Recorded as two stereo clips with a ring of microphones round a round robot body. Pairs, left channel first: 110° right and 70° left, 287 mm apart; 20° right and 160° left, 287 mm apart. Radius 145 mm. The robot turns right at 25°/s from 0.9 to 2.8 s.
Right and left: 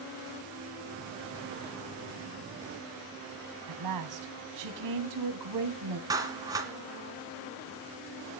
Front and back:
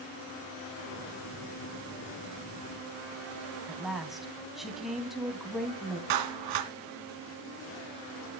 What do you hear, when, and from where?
3.7 s a woman speaking: 70° left, 3 m
6.1 s a clap: 145° left, 2.5 m